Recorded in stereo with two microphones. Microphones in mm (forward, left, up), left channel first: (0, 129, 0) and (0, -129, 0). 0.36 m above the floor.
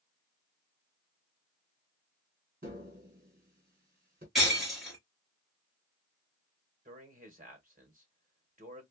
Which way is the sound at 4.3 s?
Centre (ahead or behind).